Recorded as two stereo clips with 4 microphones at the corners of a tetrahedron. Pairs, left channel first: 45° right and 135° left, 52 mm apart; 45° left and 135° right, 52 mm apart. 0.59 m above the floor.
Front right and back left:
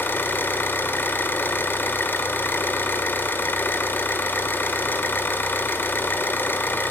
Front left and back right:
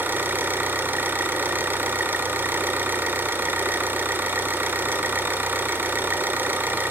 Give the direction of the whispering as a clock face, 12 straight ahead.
No whispering in this recording.